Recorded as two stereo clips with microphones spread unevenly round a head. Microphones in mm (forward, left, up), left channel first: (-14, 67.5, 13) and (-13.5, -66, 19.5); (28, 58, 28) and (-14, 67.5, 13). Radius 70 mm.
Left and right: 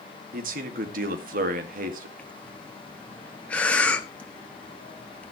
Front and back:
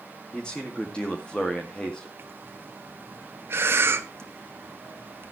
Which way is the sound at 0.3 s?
95° right.